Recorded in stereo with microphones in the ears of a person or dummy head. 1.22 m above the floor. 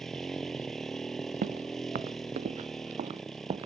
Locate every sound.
0.0 s a motorcycle: 5° right (ahead or behind)
1.4 s footsteps: 50° right (ahead or behind); by 3.7 s 30° right (ahead or behind)